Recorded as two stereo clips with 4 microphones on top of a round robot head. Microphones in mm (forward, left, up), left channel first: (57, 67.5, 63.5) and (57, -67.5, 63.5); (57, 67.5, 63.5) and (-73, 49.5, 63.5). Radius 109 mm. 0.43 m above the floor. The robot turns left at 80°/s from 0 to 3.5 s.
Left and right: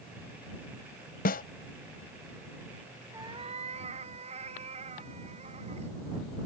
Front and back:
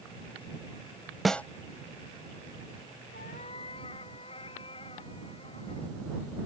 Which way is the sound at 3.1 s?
20° right.